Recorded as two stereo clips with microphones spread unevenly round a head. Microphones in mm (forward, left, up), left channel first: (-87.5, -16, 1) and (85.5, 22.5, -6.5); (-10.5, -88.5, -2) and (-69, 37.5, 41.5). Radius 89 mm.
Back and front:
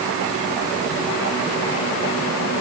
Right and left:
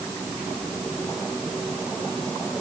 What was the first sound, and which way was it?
Only background noise.